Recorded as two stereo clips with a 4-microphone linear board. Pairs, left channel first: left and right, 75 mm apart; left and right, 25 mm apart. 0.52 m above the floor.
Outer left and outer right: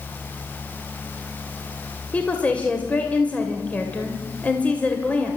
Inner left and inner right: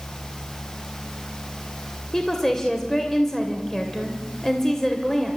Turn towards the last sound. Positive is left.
turn(degrees=15)  # may be behind; listen again after turning